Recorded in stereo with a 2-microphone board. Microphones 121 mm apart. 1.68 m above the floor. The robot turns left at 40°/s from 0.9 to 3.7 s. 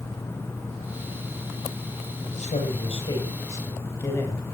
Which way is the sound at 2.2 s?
80° left.